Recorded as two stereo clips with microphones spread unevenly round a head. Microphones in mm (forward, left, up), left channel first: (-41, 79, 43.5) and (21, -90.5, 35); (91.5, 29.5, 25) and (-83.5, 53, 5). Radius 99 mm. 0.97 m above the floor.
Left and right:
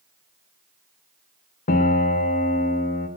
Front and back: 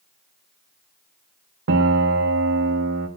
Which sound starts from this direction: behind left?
A piano, at 1.7 s.